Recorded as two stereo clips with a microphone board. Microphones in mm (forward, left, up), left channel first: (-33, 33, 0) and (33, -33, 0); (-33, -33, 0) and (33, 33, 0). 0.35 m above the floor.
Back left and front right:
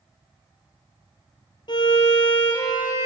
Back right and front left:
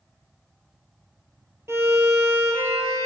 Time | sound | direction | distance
1.7 | a violin | 105° left | 1.8 m